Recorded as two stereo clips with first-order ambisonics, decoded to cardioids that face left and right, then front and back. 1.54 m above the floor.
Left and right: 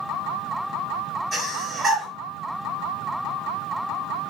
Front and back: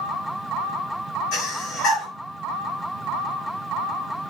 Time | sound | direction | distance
1.3 | breathing | 25° right | 1.5 m